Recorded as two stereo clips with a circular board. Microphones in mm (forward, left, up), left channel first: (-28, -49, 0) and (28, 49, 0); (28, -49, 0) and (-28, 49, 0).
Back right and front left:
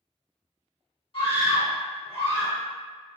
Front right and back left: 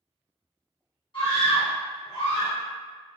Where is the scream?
95° right, 1.1 m.